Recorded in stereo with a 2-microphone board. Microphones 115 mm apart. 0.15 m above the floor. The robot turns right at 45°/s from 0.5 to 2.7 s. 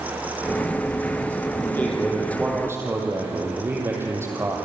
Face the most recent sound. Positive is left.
turn(degrees=-155)